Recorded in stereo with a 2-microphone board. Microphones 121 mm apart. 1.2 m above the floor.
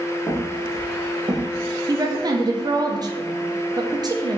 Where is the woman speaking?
35° right (ahead or behind), 0.7 m.